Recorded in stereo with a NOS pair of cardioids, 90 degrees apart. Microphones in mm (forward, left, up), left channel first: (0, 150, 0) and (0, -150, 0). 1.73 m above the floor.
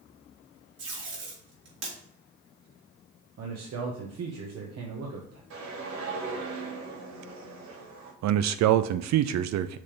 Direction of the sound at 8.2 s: 65° right.